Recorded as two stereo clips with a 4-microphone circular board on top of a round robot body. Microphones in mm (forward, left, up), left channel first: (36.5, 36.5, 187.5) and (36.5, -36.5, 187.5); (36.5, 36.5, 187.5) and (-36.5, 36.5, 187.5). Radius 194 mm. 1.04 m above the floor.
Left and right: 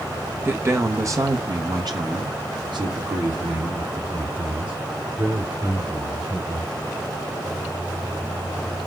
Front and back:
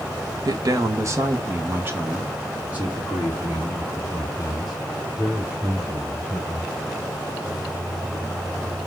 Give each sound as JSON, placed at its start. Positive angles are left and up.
{"t": 0.5, "sound": "a man speaking", "azimuth_deg": -150, "distance_m": 1.1}